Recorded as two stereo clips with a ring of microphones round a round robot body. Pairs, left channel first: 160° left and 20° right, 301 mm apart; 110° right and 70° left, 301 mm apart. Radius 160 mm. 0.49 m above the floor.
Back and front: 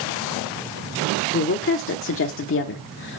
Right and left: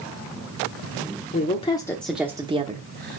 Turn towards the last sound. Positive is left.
turn(degrees=110)